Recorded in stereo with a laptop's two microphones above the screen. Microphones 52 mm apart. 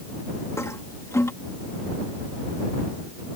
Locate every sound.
0.6 s a toilet flushing: 70° left (ahead or behind)